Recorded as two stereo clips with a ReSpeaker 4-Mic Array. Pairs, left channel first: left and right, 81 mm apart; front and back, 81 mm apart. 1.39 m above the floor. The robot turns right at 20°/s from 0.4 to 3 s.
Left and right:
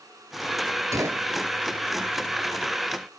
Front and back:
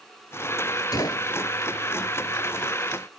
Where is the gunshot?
40° right; by 1.3 s 30° right.